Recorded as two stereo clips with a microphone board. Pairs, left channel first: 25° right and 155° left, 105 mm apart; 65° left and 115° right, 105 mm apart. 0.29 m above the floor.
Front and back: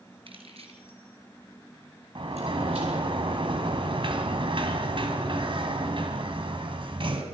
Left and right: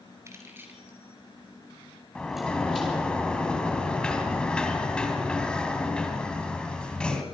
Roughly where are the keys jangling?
Behind.